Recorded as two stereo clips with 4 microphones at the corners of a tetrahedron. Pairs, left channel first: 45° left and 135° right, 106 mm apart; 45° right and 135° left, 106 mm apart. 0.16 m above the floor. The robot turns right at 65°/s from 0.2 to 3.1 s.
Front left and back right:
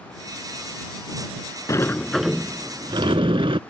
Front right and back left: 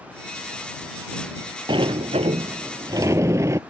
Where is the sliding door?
100° left; by 3.6 s 165° right.